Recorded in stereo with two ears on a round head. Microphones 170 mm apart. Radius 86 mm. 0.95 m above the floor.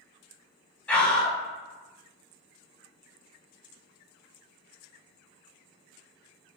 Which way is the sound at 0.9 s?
5° left (ahead or behind).